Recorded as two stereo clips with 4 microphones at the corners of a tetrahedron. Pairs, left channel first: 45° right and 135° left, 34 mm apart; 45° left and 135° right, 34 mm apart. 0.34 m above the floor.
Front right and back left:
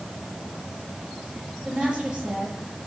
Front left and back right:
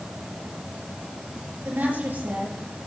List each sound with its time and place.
1.6 s a woman speaking: 155° right, 6.5 m